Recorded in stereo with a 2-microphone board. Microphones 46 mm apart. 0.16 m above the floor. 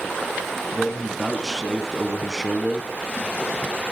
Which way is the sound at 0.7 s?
Centre (ahead or behind).